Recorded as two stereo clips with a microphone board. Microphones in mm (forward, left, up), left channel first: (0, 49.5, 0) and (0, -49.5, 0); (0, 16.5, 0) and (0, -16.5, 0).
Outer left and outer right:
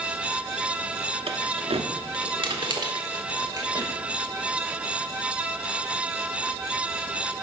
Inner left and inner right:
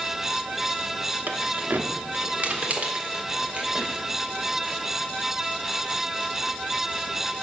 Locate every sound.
1.3 s keys jangling: 75° right (ahead or behind), 1.0 m; by 3.9 s 35° right (ahead or behind), 2.5 m